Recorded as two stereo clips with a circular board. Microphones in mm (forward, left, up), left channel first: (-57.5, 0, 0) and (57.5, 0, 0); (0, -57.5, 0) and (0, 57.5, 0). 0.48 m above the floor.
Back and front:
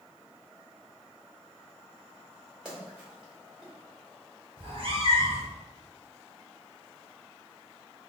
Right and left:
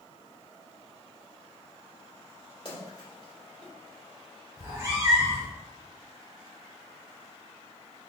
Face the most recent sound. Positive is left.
turn(degrees=25)